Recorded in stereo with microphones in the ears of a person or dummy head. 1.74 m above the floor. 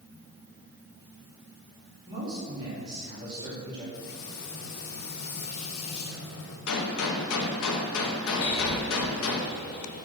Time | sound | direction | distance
2.1 | a man speaking | 25° right (ahead or behind) | 4 m
3.9 | frying | 70° left (ahead or behind) | 2.5 m
6.7 | a gunshot | 80° left | 1.4 m
8.4 | breathing | 50° left (ahead or behind) | 3 m